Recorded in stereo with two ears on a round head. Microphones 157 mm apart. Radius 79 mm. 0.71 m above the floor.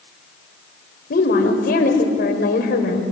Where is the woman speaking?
55° left (ahead or behind), 3.5 m.